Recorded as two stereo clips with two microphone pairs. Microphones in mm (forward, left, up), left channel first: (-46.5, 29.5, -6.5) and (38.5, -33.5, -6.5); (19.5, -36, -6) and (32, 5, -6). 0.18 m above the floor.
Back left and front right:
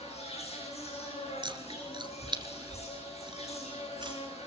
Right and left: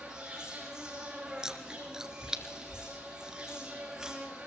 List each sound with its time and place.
0.0 s an insect: 145° left, 7.5 m
1.4 s chewing: straight ahead, 2 m